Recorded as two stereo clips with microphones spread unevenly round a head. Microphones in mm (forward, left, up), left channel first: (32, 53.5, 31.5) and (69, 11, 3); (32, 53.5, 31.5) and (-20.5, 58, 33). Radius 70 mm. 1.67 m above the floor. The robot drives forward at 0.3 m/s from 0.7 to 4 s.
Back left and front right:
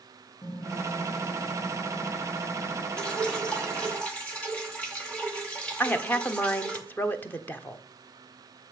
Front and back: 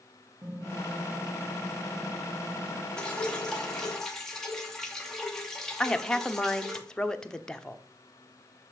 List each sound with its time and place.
0.4 s typing on a keyboard: 125° left, 3 m; by 2.9 s 135° left, 3.5 m
3.0 s dripping: 70° left, 2 m; by 6.8 s 75° left, 2 m
5.8 s a woman speaking: 70° left, 1.1 m